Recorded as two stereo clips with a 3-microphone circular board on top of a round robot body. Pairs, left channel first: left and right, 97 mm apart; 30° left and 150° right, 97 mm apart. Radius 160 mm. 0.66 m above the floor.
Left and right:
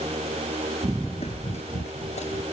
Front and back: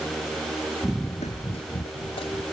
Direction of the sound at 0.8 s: 80° right.